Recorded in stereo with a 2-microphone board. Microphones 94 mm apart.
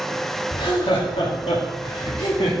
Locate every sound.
0.5 s laughter: 55° left (ahead or behind), 1.9 m; by 2.5 s 75° left (ahead or behind), 1.9 m